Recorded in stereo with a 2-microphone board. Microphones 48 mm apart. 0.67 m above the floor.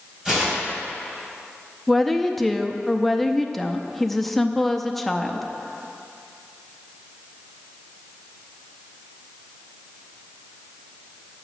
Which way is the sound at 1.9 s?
5° left (ahead or behind).